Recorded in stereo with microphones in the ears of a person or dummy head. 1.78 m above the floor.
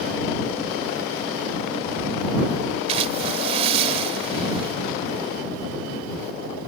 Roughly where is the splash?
Right.